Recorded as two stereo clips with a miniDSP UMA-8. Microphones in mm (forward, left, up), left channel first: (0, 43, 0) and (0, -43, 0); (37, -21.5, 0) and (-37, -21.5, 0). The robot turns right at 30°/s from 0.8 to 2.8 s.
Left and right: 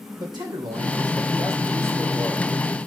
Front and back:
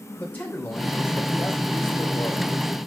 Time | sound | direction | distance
0.2 | a man speaking | 65° right | 2.5 m